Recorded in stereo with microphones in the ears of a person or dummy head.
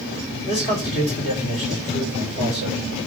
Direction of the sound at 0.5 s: 50° left (ahead or behind).